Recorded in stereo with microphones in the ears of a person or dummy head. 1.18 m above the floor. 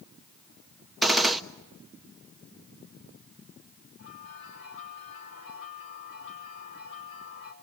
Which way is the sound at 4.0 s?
80° left.